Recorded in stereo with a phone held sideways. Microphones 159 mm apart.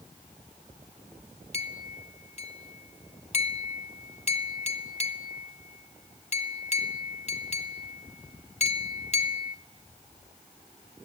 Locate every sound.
1.5 s a clink: 45° left (ahead or behind), 0.6 m